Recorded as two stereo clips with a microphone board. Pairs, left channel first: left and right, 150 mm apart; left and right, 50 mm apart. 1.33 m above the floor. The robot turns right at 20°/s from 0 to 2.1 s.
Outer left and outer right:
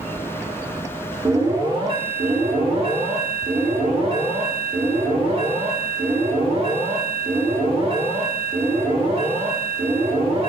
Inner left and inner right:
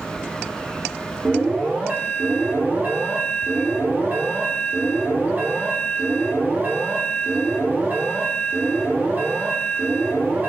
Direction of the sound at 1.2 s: 25° right (ahead or behind).